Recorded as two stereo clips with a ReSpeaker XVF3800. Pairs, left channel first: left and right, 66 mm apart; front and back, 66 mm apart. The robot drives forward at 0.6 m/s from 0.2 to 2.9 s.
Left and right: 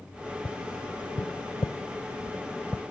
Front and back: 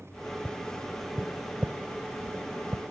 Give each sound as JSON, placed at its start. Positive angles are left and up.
{"t": 0.5, "sound": "tapping", "azimuth_deg": 70}